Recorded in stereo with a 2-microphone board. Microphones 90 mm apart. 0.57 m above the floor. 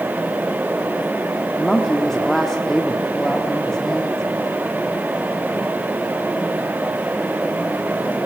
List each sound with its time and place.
1.6 s a woman speaking: 5° left (ahead or behind), 1.4 m